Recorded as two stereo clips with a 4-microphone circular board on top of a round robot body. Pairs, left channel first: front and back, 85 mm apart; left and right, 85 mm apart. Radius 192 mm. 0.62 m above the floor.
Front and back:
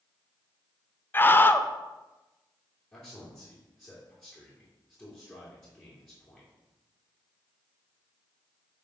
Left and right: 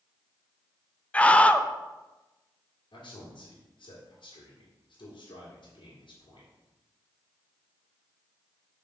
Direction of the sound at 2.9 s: 80° left.